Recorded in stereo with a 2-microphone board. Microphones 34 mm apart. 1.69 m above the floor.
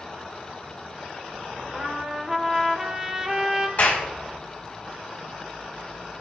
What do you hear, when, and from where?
1.7 s a trumpet: 15° right (ahead or behind), 1.2 m
3.8 s a clap: 50° left (ahead or behind), 4 m